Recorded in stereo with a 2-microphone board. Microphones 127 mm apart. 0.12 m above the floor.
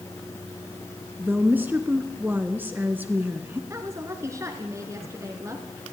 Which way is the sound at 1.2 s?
15° right (ahead or behind).